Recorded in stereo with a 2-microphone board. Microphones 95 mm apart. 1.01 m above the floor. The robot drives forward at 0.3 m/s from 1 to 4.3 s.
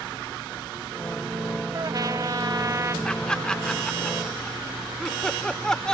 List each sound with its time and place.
1.7 s a trumpet: 45° right (ahead or behind); by 3.0 s 35° right (ahead or behind)
3.0 s laughter: 10° left (ahead or behind)